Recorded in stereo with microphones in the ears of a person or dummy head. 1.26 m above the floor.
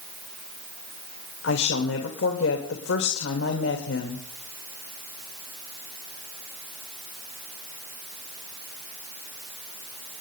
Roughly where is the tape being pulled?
I don't hear tape being pulled.